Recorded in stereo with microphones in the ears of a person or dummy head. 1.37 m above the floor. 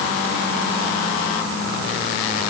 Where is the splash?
No splash in this recording.